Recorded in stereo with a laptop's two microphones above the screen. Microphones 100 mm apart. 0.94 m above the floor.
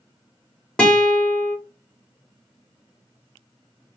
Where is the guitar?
10° left (ahead or behind), 1.0 m.